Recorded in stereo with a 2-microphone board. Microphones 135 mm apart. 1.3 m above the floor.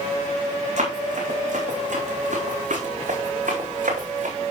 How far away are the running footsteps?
About 5 m.